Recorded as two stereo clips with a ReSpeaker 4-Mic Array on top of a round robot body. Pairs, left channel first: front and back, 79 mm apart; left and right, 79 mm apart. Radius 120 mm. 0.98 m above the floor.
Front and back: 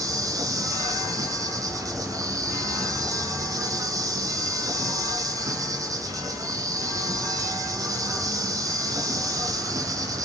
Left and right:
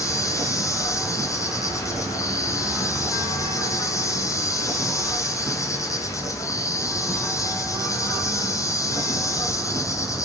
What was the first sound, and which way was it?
An insect, 135° left.